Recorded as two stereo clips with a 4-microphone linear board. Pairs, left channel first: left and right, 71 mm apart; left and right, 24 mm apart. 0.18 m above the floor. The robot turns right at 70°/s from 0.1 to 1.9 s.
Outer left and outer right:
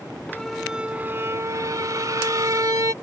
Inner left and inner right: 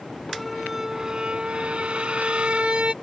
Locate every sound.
0.3 s a squeak: 165° left; by 2.9 s 85° right